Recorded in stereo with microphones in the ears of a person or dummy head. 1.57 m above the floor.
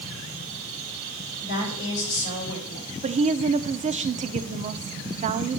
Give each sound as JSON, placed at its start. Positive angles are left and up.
{"t": 1.4, "sound": "a woman speaking", "side_deg": 45, "distance_m": 5.0}
{"t": 3.0, "sound": "a woman speaking", "side_deg": -40, "distance_m": 0.6}